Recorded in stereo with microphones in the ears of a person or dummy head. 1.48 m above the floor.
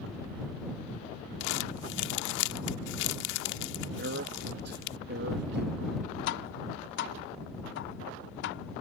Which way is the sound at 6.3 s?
55° left (ahead or behind).